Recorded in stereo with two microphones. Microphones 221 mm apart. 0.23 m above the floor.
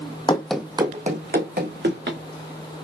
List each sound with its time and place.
0.3 s running footsteps: 25° left (ahead or behind), 0.6 m; by 2.2 s 60° right (ahead or behind), 1.7 m